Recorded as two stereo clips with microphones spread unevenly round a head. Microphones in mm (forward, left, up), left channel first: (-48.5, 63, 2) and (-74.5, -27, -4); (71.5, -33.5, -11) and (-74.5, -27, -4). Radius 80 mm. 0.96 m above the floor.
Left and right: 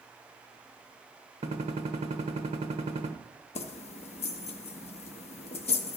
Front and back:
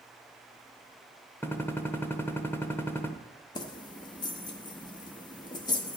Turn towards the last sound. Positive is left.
turn(degrees=65)